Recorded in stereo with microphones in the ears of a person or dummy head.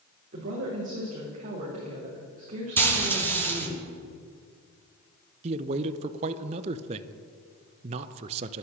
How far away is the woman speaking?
About 3.5 m.